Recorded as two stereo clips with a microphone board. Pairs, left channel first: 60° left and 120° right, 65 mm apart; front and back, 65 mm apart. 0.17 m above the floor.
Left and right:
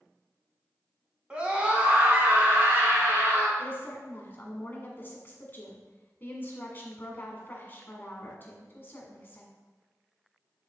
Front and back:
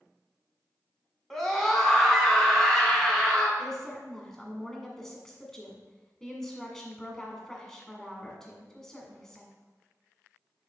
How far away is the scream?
About 1.3 m.